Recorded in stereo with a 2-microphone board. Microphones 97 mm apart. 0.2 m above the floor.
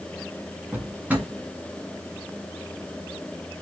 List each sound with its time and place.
0.7 s a drawer: 20° right (ahead or behind), 0.9 m